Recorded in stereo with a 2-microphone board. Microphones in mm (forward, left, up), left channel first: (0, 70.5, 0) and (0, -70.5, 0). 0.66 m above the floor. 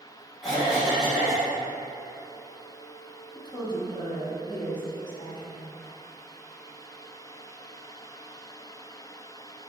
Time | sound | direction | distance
0.4 | a cough | centre (ahead or behind) | 1.0 m
3.4 | a woman speaking | 30° left (ahead or behind) | 0.6 m